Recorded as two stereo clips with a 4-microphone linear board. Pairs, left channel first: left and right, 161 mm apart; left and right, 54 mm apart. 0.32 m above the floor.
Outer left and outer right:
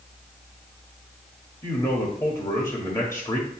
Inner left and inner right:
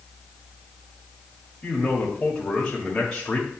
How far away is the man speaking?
About 1.5 m.